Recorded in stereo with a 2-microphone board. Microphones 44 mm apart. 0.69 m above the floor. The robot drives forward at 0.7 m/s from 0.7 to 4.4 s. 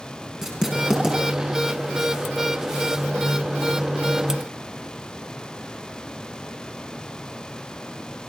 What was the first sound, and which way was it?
Writing, 10° right (ahead or behind).